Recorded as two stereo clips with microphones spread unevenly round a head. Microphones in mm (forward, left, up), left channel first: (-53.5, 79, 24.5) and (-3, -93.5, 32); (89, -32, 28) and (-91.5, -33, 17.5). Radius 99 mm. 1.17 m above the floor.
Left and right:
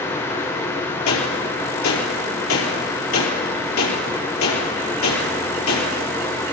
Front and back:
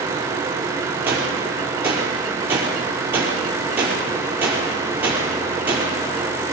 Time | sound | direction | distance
1.1 | a gunshot | 100° left | 4.5 m